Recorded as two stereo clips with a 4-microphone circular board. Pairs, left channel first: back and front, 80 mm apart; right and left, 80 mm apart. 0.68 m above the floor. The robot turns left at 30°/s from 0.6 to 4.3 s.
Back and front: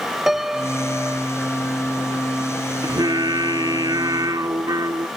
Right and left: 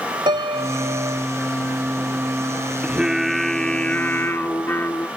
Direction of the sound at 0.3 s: 85° left.